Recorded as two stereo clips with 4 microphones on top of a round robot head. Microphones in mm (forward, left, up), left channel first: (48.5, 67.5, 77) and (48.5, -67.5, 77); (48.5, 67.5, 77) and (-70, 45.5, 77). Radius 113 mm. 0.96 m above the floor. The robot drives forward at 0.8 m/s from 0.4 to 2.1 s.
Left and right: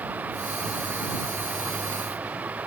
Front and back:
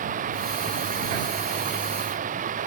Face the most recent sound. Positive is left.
turn(degrees=-170)